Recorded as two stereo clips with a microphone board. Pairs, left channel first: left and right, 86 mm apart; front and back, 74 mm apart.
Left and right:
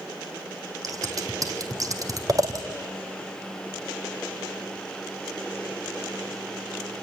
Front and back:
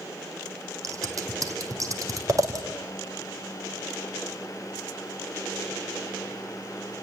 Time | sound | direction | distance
0.8 | scissors | 135° right | 2.5 m